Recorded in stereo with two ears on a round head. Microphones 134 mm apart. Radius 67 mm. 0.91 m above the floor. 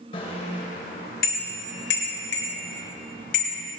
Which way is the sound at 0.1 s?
40° left (ahead or behind).